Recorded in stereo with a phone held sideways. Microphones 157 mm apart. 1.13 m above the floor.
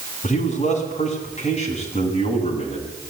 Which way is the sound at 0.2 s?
45° left (ahead or behind).